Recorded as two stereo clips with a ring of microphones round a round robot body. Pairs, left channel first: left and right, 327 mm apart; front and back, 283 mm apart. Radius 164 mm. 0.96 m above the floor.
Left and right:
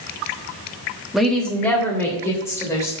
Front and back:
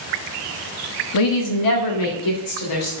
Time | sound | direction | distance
1.1 | a woman speaking | straight ahead | 1.2 m